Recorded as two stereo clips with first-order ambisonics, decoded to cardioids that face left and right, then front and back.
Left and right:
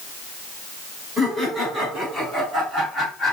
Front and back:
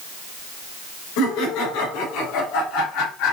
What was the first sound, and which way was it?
Laughter, straight ahead.